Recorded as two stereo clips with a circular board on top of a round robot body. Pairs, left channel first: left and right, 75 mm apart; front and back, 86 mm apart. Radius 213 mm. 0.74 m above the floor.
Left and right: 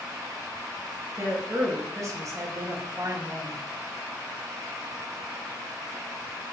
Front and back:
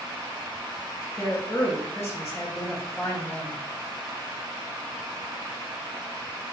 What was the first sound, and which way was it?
A woman speaking, 55° right.